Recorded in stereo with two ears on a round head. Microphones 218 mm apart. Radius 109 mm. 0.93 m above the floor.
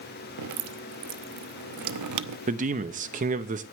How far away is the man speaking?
About 1.1 m.